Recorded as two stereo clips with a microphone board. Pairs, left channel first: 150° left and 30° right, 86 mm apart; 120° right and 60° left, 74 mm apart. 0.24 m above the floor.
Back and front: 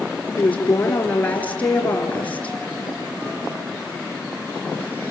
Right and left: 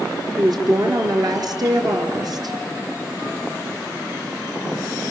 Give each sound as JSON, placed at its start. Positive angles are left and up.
{"t": 0.4, "sound": "a woman speaking", "azimuth_deg": 80, "distance_m": 4.0}